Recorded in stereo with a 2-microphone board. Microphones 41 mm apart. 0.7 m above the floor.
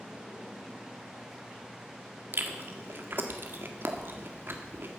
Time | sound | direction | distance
2.3 | chewing | 55° right (ahead or behind) | 1.7 m